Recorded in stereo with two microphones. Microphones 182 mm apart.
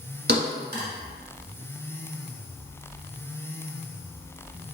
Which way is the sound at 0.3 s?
60° right (ahead or behind).